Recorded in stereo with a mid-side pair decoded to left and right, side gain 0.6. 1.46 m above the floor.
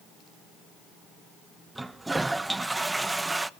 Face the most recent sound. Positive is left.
turn(degrees=-10)